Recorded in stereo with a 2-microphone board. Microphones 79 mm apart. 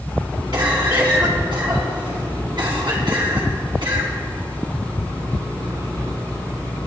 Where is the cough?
70° right (ahead or behind), 3.5 m.